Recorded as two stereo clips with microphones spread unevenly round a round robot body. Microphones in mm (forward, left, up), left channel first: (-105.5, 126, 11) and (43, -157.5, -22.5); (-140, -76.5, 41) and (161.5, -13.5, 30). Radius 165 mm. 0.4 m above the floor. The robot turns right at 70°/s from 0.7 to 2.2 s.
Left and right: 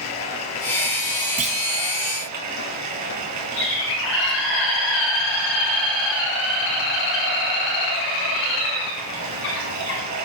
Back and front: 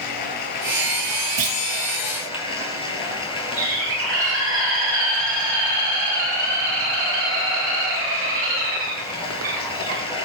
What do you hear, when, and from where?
0.0 s running water: 160° left, 4 m; by 10.3 s 95° right, 4 m
1.4 s a clunk: straight ahead, 1.3 m; by 1.6 s 15° left, 1.3 m
3.6 s a bird: 65° left, 7 m